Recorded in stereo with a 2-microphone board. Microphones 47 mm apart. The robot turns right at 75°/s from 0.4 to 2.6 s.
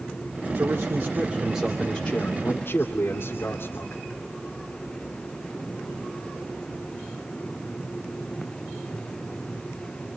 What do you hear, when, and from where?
0.6 s a man speaking: 85° right, 2.5 m; by 4.0 s 70° left, 2.5 m